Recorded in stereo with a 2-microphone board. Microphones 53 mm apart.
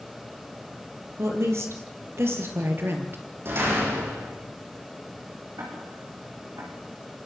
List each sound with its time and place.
1.2 s a woman speaking: 60° right (ahead or behind), 6.5 m; by 3.2 s 45° right (ahead or behind), 4.5 m
3.5 s a door slam: 50° right (ahead or behind), 9 m
5.6 s ticking: 75° right (ahead or behind), 8 m